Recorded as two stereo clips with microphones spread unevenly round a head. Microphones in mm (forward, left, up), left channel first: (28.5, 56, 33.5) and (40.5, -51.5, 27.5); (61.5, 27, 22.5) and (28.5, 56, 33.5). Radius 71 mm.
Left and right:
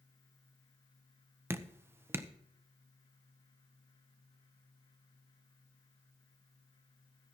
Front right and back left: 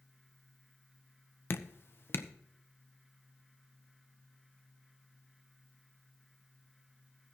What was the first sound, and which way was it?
Dripping, 15° right.